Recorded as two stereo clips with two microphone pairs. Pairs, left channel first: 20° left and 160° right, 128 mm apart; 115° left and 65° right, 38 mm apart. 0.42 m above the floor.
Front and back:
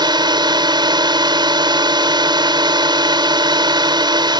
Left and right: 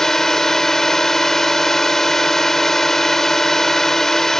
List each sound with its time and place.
0.0 s a drone: 175° right